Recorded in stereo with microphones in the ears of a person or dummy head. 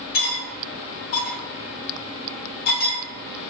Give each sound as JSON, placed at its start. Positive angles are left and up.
{"t": 0.1, "sound": "cutlery clinking", "side_deg": 45, "distance_m": 0.9}